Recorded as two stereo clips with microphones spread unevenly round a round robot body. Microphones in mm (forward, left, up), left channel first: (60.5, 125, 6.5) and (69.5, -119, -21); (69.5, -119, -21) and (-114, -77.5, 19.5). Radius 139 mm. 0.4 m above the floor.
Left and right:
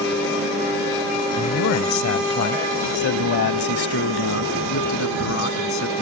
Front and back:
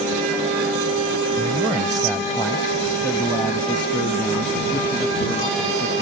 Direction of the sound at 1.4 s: 100° left.